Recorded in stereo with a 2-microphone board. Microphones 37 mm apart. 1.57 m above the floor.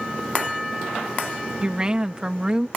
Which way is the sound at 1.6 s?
25° right (ahead or behind).